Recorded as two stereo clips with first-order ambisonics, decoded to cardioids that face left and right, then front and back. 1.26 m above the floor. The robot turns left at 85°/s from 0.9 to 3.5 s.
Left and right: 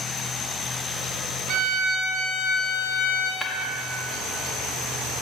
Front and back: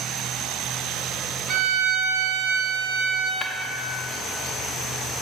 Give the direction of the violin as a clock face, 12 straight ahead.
4 o'clock.